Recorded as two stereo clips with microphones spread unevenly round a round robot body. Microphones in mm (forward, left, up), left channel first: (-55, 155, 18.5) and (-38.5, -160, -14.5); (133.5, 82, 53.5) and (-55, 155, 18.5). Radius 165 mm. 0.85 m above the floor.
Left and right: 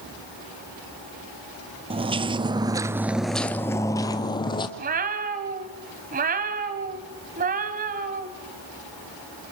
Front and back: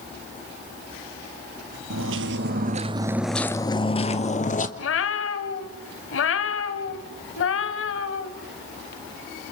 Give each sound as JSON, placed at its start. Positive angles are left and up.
{"t": 1.9, "sound": "footsteps", "azimuth_deg": -165, "distance_m": 1.4}
{"t": 4.8, "sound": "a cat meowing", "azimuth_deg": -20, "distance_m": 1.5}